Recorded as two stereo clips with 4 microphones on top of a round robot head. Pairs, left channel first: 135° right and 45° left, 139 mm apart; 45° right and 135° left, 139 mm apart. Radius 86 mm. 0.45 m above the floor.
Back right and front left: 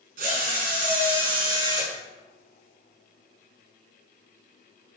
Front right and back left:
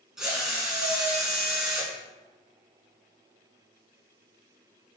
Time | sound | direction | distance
0.2 | a drill | 50° left | 6.5 m